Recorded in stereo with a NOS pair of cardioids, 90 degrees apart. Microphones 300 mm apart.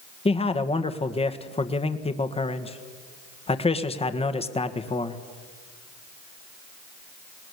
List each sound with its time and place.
0.2 s a man speaking: 20° left, 1.6 m